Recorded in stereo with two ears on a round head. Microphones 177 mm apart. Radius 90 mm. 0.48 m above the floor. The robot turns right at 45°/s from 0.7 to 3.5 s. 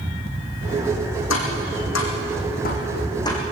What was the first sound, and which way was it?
Tapping, 70° left (ahead or behind).